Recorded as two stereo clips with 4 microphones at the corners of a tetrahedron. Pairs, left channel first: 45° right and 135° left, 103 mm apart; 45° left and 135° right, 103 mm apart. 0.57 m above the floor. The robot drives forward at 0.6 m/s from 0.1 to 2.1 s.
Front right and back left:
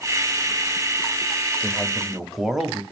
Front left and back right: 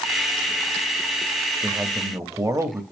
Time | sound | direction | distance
1.6 | a man speaking | 95° right | 0.8 m